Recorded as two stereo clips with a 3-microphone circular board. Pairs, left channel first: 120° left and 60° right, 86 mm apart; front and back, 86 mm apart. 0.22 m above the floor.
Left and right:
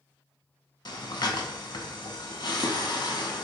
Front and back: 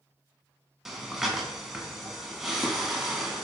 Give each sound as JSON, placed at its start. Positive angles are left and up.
{"t": 0.8, "sound": "breathing", "azimuth_deg": 95, "distance_m": 0.5}